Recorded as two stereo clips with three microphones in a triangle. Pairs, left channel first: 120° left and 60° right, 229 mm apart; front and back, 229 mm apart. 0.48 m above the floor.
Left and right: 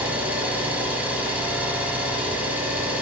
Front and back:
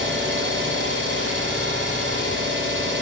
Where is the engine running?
145° right, 0.9 m.